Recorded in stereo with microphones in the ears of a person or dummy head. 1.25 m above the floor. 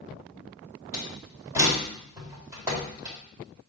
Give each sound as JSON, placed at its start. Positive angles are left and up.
{"t": 0.9, "sound": "a door slam", "side_deg": -10, "distance_m": 4.0}